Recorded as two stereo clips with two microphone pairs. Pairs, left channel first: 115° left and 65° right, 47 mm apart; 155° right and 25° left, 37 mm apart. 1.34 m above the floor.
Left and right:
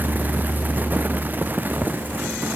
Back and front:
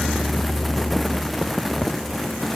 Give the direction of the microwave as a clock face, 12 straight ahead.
No microwave in this recording.